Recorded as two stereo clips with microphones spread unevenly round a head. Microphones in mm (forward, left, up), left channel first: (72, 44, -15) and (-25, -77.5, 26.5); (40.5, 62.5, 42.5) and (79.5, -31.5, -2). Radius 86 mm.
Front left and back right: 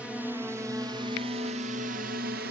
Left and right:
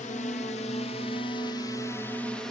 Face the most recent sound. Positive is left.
turn(degrees=-135)